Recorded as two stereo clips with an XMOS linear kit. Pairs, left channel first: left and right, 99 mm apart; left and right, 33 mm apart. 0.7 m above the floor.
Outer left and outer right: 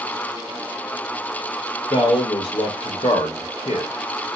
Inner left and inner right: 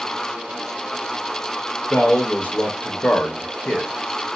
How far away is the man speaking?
About 1.0 m.